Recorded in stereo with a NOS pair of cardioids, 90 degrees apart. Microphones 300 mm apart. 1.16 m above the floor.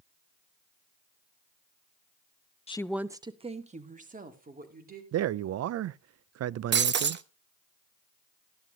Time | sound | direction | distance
2.7 | a woman speaking | 20° left | 0.5 m
5.1 | a man speaking | 60° right | 0.6 m
6.7 | breaking glass | 40° right | 0.8 m